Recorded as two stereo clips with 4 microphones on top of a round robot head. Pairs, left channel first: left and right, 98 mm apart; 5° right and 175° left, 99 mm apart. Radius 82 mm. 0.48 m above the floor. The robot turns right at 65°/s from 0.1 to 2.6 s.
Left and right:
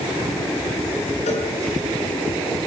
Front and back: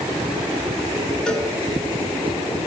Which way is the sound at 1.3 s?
75° left.